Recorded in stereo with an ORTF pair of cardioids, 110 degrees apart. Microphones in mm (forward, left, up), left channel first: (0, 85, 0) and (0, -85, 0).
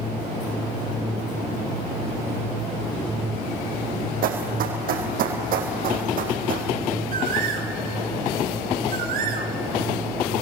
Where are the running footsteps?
60° right, 4.5 m.